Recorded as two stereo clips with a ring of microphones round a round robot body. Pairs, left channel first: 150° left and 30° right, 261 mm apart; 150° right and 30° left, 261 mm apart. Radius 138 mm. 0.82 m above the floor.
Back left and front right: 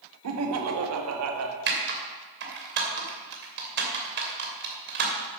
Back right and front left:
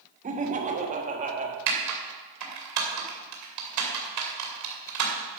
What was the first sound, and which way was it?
Laughter, 30° right.